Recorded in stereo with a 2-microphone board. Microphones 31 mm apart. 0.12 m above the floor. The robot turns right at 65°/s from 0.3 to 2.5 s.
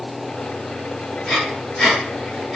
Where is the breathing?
25° left (ahead or behind), 1.9 m; by 2.6 s 10° left (ahead or behind), 1.9 m.